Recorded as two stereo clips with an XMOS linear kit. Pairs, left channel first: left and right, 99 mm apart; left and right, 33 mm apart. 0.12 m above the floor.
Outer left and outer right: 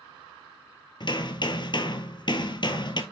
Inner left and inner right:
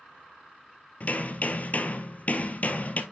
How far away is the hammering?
About 1.1 m.